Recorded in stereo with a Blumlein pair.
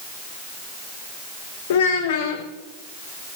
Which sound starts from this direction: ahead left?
A child speaking, at 1.7 s.